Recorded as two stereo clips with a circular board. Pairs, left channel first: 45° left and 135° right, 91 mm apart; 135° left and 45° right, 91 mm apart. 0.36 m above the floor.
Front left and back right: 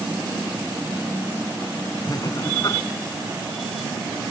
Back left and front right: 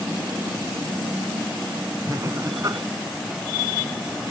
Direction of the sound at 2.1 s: Straight ahead.